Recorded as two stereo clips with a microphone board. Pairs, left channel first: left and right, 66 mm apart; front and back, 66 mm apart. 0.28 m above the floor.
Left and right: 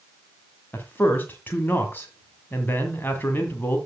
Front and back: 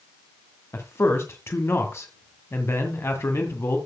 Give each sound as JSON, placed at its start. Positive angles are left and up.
{"t": 0.7, "sound": "a man speaking", "azimuth_deg": 35, "distance_m": 1.8}